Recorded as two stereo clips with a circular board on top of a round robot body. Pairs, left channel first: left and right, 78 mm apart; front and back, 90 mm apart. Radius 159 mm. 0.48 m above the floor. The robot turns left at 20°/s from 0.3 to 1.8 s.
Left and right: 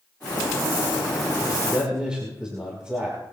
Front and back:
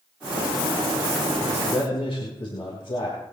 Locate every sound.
1.4 s a man speaking: 5° right, 4.5 m; by 3.2 s 10° right, 4.5 m